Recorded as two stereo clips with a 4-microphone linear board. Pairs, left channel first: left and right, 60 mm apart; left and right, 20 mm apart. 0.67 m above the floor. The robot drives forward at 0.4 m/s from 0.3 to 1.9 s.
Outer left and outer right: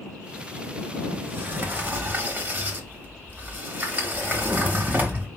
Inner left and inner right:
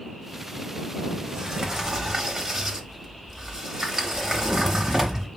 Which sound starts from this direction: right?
A sliding door, at 1.1 s.